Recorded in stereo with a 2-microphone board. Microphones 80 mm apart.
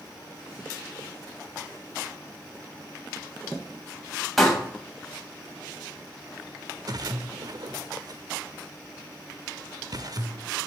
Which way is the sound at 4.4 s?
Centre (ahead or behind).